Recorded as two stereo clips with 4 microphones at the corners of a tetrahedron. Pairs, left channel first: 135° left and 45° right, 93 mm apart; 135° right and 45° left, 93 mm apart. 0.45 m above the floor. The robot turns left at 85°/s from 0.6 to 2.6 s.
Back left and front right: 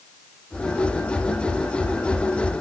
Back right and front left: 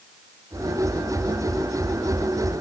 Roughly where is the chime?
I don't hear a chime.